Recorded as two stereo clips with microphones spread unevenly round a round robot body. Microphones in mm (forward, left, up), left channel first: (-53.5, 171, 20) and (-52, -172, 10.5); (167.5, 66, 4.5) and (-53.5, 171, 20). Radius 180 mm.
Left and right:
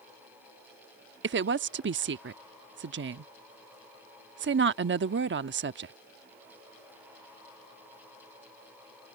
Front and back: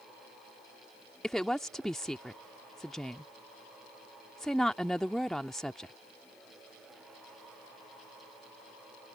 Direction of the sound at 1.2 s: 110° right.